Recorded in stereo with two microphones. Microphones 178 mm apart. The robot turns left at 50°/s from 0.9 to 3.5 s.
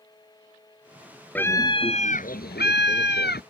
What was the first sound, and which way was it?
A scream, 170° left.